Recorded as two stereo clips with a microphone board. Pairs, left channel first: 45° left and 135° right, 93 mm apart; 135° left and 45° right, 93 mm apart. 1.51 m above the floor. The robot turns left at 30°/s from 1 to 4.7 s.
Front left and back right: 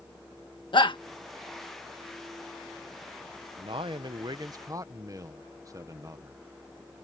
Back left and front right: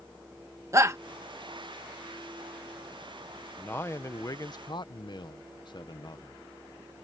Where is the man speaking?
155° right; by 6.4 s 170° left.